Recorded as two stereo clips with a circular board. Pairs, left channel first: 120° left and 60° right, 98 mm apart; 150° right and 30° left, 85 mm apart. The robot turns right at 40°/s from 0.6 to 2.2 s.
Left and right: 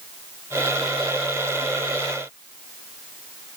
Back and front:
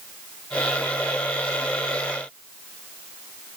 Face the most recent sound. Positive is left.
No sound to turn to.